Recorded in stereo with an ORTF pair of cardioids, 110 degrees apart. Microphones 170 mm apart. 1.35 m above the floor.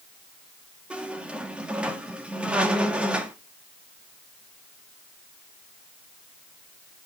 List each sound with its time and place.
0.9 s a squeak: 5° right, 1.8 m